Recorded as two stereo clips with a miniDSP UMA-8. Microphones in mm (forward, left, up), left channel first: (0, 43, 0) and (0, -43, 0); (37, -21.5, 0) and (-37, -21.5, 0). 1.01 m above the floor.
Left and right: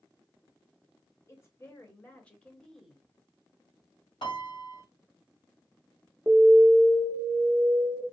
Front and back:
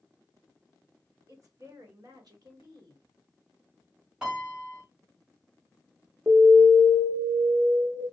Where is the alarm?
160° right, 0.7 m.